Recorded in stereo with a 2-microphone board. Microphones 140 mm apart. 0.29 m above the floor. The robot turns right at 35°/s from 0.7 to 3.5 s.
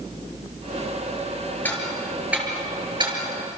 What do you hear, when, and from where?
1.6 s ticking: 15° left (ahead or behind), 5.5 m; by 3.2 s 40° right (ahead or behind), 5.5 m